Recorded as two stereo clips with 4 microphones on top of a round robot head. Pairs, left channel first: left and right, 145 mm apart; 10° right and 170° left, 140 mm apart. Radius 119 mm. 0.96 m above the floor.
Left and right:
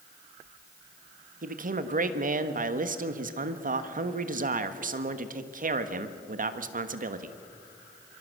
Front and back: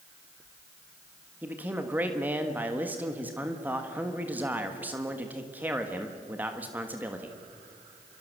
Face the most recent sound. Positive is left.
turn(degrees=-110)